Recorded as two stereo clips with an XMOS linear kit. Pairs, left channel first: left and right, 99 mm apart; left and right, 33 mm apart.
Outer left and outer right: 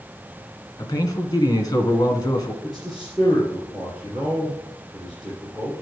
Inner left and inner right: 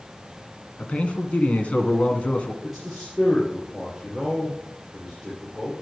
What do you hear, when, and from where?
0.8 s a man speaking: 40° left (ahead or behind), 1.9 m
2.6 s a man speaking: 5° right (ahead or behind), 4.5 m